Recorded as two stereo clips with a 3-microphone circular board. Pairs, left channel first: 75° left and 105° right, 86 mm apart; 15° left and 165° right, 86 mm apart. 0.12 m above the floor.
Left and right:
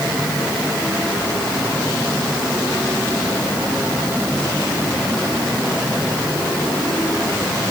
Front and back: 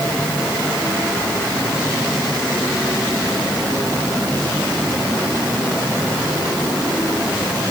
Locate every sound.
Only background noise.